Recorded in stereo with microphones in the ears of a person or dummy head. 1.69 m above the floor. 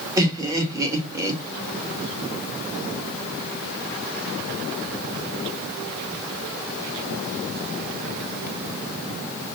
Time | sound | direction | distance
0.2 | laughter | 20° right (ahead or behind) | 1.6 m